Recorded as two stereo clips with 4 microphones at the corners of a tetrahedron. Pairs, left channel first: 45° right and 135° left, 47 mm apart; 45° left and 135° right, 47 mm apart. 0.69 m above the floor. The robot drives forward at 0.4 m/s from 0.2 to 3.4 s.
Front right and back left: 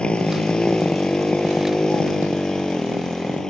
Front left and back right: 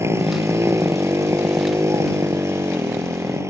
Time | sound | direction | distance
0.0 | a motorcycle | 115° right | ?